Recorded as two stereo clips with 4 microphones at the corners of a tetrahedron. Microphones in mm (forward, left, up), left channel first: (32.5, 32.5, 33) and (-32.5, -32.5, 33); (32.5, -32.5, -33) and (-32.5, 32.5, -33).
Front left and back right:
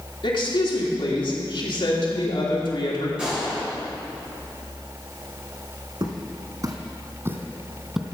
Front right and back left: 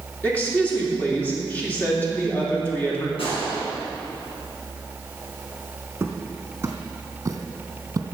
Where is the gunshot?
55° right, 5 m.